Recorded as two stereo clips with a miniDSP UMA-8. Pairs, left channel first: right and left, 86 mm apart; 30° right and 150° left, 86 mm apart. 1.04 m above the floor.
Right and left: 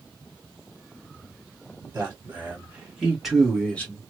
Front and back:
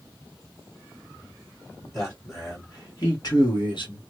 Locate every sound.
1.9 s a man speaking: 25° left, 2 m; by 4.0 s 20° right, 1.3 m